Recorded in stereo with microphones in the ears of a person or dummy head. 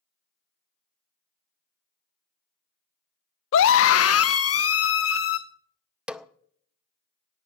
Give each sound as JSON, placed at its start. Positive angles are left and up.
{"t": 3.5, "sound": "a scream", "side_deg": 65, "distance_m": 0.6}
{"t": 6.1, "sound": "a snare drum", "side_deg": -5, "distance_m": 0.6}